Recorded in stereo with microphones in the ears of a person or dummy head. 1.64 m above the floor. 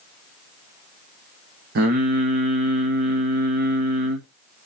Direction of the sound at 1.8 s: 60° right (ahead or behind).